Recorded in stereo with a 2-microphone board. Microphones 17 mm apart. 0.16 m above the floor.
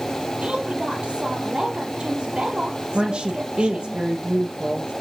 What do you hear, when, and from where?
0.4 s a woman speaking: 55° right (ahead or behind), 4.5 m
2.9 s a woman speaking: 50° right (ahead or behind), 3 m